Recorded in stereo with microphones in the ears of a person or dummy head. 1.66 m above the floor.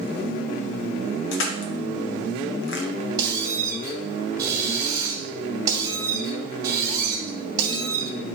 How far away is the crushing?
About 1.2 m.